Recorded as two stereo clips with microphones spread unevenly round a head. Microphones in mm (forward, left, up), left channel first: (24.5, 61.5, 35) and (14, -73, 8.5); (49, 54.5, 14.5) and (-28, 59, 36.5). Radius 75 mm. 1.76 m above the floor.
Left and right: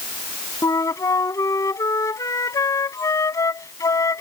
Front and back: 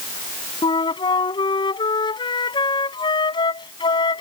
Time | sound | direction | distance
0.6 | a flute | 20° left | ?